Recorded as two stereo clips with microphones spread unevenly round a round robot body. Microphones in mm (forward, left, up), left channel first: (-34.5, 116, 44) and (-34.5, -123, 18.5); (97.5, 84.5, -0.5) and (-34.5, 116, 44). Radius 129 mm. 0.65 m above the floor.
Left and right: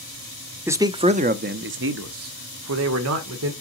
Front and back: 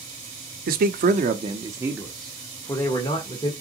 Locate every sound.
0.7 s a man speaking: 165° right, 0.9 m; by 3.5 s 70° right, 1.7 m